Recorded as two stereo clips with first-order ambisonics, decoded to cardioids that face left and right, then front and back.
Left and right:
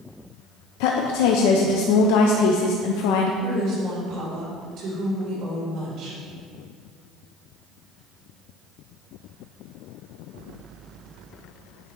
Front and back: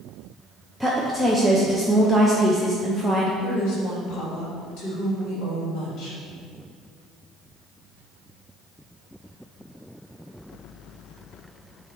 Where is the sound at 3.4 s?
40° right, 2.5 m.